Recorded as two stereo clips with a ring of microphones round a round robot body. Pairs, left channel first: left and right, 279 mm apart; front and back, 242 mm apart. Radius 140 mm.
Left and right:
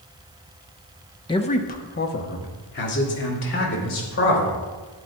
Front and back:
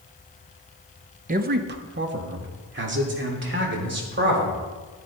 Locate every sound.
1.3 s a man speaking: 155° left, 0.7 m; by 4.5 s 140° left, 4 m